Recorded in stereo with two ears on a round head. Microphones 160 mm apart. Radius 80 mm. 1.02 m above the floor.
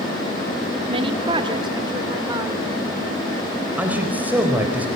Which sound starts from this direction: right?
A woman speaking, at 0.9 s.